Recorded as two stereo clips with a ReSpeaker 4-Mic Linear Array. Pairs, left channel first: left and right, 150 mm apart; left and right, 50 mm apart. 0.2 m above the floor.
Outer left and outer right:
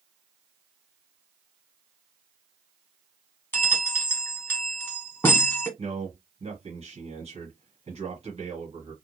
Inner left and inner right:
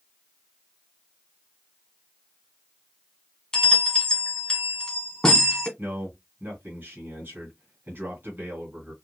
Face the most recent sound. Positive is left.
turn(degrees=-45)  # may be behind; listen again after turning